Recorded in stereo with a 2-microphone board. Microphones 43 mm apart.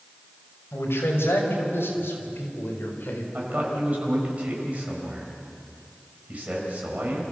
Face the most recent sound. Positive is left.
turn(degrees=-35)  # may be behind; listen again after turning